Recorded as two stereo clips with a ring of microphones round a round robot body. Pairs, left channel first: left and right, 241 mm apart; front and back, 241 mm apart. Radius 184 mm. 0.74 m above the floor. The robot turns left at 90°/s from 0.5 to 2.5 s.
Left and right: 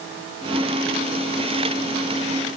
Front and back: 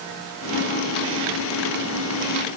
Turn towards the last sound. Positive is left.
No sound to turn to.